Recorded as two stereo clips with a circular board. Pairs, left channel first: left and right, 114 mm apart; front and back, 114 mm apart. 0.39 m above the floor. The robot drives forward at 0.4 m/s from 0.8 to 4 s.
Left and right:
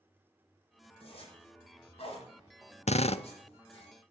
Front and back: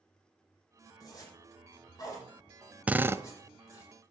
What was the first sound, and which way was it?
A zipper, 60° left.